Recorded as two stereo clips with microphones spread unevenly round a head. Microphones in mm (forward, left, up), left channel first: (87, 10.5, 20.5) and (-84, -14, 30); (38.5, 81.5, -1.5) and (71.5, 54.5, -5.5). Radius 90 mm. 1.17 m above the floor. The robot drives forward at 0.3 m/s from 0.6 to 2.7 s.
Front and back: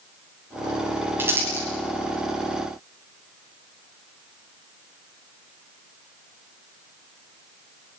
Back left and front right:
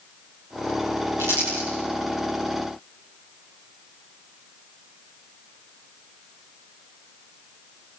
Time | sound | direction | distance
1.2 | crumpling | 95° right | 10 m